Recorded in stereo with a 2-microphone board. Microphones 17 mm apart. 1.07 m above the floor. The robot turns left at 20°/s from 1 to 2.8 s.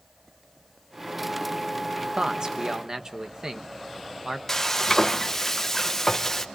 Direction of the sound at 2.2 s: 45° right (ahead or behind).